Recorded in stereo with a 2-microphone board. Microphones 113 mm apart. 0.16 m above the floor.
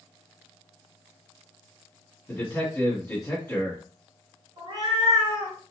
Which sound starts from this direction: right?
A cat meowing, at 4.6 s.